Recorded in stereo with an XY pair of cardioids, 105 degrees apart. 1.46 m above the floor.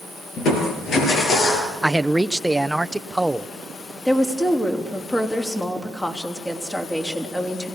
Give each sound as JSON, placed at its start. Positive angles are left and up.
{"t": 0.4, "sound": "crushing", "azimuth_deg": 65, "distance_m": 6.0}
{"t": 1.8, "sound": "a man speaking", "azimuth_deg": -10, "distance_m": 0.7}
{"t": 4.0, "sound": "a woman speaking", "azimuth_deg": 15, "distance_m": 3.5}